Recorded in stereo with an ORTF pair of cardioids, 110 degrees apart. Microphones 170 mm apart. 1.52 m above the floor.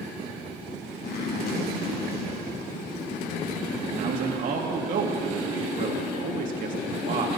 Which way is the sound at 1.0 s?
65° left.